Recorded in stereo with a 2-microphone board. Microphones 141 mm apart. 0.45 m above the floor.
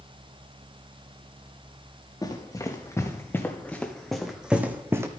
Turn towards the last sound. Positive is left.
turn(degrees=-20)  # may be behind; listen again after turning